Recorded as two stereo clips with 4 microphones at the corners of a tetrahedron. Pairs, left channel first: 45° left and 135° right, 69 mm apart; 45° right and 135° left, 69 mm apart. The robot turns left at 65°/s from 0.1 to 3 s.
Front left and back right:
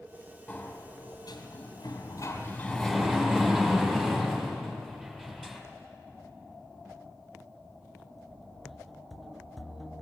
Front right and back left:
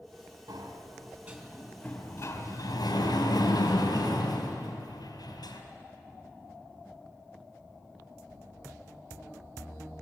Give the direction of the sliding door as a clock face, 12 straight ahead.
8 o'clock.